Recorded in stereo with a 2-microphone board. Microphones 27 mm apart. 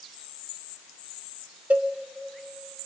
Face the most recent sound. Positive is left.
turn(degrees=-60)  # may be behind; listen again after turning